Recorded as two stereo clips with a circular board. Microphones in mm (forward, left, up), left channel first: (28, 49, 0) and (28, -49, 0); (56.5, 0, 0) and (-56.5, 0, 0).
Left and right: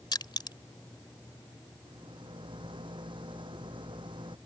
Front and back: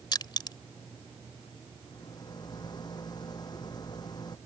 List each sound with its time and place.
0.1 s crushing: 50° left
1.9 s a rattle: 55° right